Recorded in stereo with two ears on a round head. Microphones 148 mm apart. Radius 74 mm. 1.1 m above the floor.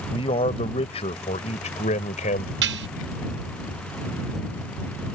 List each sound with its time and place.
0.1 s a man speaking: 35° left (ahead or behind); by 2.5 s 50° left (ahead or behind)
2.6 s dishes clattering: 75° right (ahead or behind)